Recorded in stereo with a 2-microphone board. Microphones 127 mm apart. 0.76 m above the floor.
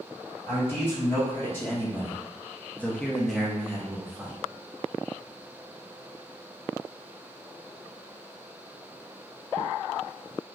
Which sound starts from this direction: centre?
A man speaking, at 0.5 s.